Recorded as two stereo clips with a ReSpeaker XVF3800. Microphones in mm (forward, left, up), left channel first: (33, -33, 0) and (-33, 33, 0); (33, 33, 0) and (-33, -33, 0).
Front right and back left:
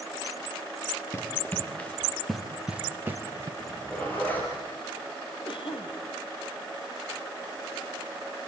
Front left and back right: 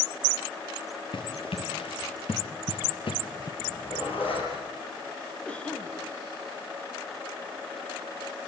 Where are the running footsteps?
20° left, 3 m; by 3.5 s 80° left, 2 m.